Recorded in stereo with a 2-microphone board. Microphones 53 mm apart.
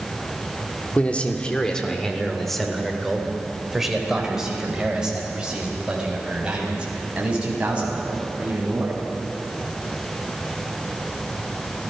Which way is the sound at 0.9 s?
30° left (ahead or behind).